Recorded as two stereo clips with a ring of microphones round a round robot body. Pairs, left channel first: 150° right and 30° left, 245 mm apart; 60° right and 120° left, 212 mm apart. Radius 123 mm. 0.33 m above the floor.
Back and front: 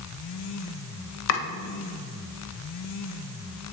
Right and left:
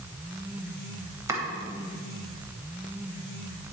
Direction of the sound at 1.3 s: 165° right.